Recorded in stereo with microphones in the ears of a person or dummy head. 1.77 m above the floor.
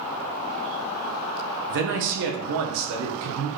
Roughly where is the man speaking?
Right.